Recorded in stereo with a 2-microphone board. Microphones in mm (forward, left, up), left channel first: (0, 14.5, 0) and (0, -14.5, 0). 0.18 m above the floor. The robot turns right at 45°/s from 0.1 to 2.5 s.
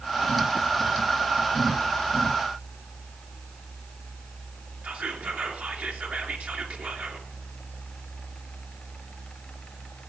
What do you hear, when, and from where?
4.8 s whispering: 50° right (ahead or behind), 3 m